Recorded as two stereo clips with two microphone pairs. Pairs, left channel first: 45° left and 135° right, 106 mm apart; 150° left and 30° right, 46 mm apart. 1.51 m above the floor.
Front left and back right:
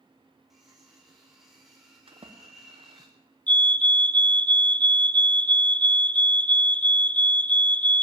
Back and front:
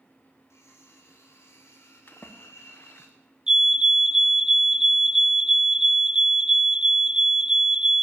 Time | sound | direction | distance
0.5 | cutlery clinking | 140° left | 3.5 m
2.1 | a splash | 160° right | 0.8 m
3.5 | a fire alarm | straight ahead | 0.5 m